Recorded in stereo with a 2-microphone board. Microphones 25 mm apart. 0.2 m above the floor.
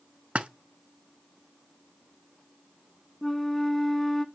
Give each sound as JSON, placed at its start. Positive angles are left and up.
{"t": 0.3, "sound": "a splash", "side_deg": -60, "distance_m": 0.6}
{"t": 3.2, "sound": "a flute", "side_deg": 5, "distance_m": 0.7}